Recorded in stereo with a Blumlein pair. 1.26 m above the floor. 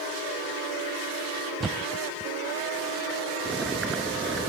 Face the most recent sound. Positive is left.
turn(degrees=-15)